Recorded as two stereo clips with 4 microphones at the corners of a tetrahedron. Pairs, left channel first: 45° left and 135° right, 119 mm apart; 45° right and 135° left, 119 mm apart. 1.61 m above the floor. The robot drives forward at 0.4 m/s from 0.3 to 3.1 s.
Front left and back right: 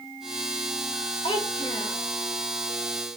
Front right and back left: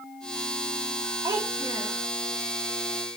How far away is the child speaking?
About 2.5 m.